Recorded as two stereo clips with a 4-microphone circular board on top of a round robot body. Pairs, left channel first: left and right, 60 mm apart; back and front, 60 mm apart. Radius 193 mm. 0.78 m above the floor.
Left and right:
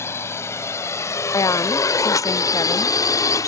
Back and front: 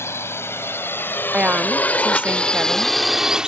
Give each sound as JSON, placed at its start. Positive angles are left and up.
{"t": 0.0, "sound": "a drone", "azimuth_deg": 135}
{"t": 1.3, "sound": "a woman speaking", "azimuth_deg": 70}